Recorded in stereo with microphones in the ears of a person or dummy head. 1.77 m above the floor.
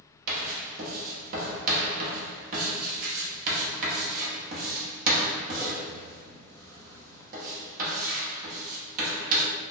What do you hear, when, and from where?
0.3 s writing: 50° right (ahead or behind), 0.9 m